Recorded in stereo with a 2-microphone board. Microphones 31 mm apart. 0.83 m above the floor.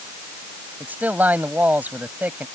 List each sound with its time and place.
0.8 s a man speaking: 65° right (ahead or behind)